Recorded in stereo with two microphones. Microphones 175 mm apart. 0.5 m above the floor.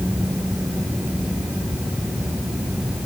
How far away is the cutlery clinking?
No cutlery clinking in this recording.